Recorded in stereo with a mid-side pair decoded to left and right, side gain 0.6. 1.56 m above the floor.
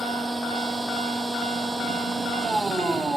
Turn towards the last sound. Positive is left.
turn(degrees=-15)